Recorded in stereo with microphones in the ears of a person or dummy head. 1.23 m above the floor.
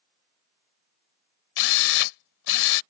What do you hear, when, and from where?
1.6 s a drill: 70° left (ahead or behind)